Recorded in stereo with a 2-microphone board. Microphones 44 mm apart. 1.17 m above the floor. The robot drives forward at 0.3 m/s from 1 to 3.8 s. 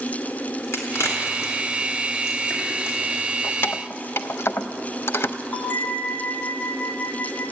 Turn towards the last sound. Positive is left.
turn(degrees=40)  # may be behind; listen again after turning